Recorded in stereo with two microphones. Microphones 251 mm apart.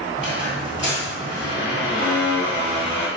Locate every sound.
0.2 s a squeak: 20° right (ahead or behind), 1.4 m